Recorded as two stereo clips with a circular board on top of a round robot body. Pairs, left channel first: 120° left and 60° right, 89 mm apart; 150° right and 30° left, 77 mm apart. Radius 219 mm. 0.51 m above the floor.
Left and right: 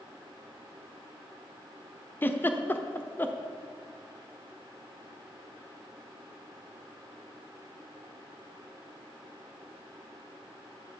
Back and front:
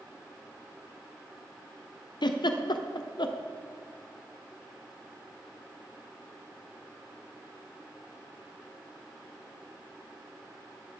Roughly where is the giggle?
Behind.